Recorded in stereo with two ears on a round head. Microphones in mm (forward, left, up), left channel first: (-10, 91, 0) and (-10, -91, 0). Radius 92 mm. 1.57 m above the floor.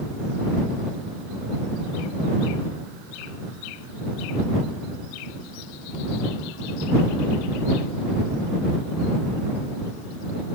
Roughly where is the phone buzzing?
I don't hear a phone buzzing.